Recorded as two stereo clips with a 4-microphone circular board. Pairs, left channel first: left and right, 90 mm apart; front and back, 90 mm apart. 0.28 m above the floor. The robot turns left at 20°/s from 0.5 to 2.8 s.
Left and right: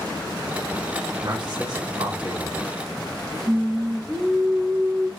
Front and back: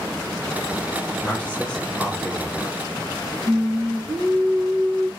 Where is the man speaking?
70° right, 2.5 m; by 2.5 s 100° right, 2.5 m.